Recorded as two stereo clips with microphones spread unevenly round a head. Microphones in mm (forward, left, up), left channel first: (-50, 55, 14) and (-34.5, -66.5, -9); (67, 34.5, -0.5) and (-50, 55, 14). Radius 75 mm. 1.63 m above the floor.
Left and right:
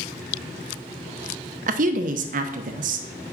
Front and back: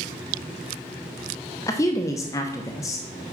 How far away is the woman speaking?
About 0.8 m.